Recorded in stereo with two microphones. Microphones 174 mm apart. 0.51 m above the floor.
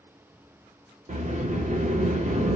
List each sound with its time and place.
1.1 s a sliding door: 50° right (ahead or behind), 0.8 m